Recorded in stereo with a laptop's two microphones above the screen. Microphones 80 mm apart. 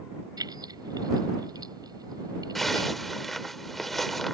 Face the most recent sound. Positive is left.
turn(degrees=0)  # may be behind; listen again after turning